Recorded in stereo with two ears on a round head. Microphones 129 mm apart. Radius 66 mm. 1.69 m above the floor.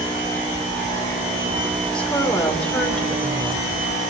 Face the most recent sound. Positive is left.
turn(degrees=5)  # may be behind; listen again after turning